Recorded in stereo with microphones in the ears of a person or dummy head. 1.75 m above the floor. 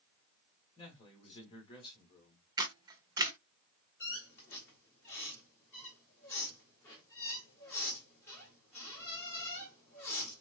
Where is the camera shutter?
25° right (ahead or behind), 0.8 m.